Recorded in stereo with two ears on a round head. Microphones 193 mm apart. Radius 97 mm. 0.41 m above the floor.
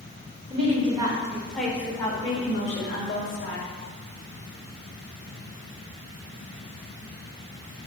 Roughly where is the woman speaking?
Right.